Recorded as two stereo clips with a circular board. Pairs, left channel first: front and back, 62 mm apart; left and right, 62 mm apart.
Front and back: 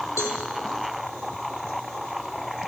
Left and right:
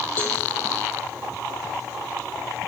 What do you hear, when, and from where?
0.2 s a cowbell: 35° left, 1.8 m